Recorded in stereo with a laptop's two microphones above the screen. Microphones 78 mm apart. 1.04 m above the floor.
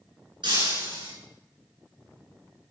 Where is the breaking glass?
75° right (ahead or behind), 8.5 m.